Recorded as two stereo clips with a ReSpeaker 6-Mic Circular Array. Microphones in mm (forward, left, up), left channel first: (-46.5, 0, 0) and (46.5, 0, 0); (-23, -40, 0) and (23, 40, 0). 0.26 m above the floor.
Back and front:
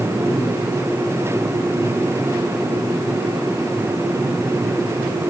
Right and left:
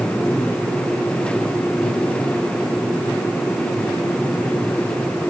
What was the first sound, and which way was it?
Only background noise.